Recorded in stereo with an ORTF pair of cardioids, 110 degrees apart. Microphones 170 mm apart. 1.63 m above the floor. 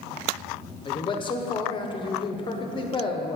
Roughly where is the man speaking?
Ahead left.